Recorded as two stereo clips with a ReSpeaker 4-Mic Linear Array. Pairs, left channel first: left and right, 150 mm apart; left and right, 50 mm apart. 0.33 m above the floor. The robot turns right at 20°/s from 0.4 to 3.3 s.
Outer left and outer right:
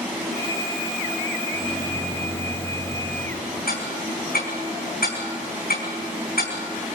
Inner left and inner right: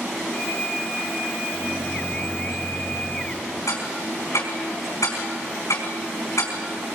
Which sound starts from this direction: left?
Ticking, at 3.7 s.